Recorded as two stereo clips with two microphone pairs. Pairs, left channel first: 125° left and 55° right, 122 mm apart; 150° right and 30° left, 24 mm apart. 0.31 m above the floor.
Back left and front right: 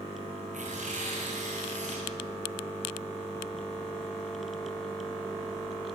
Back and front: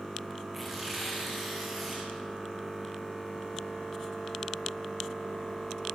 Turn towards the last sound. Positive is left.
turn(degrees=-45)